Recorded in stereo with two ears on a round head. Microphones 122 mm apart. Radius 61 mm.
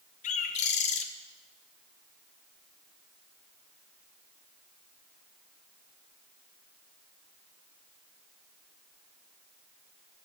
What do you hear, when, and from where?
0.2 s a bird: 55° left (ahead or behind), 0.8 m